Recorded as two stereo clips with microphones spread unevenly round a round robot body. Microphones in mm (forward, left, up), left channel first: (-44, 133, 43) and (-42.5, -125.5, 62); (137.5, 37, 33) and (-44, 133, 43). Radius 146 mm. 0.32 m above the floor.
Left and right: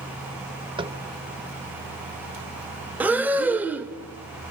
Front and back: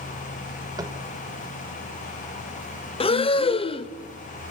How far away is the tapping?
About 1.0 m.